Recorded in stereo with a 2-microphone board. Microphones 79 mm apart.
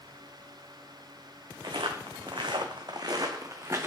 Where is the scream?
No scream in this recording.